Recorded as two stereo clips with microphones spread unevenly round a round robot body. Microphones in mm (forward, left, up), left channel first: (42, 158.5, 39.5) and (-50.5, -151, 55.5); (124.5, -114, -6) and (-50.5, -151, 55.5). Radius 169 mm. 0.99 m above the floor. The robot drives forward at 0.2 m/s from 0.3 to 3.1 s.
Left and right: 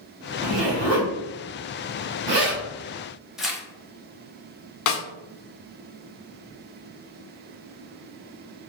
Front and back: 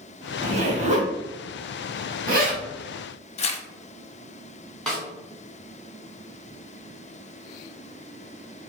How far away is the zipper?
About 1.3 m.